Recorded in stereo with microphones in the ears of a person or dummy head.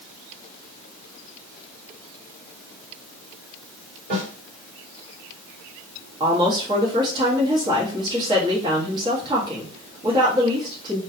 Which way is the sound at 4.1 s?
50° right (ahead or behind).